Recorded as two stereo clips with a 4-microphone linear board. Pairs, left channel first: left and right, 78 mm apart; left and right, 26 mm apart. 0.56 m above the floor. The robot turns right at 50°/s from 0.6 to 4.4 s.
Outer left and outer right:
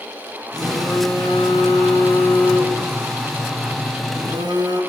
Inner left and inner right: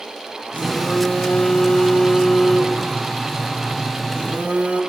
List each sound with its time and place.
0.5 s a phone buzzing: 65° left, 6 m; by 4.8 s 105° right, 6 m